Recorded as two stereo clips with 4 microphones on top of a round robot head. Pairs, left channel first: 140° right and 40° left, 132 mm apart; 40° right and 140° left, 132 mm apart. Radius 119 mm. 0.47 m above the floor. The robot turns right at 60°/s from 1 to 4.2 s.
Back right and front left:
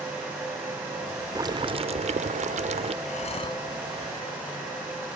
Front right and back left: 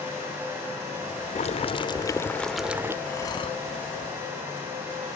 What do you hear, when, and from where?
1.4 s boiling: 20° right; by 3.0 s 75° left
3.0 s breathing: 115° right; by 3.6 s 80° right